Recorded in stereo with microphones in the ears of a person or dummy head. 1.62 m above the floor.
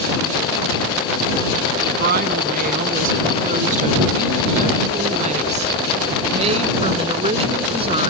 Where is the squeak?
I don't hear a squeak.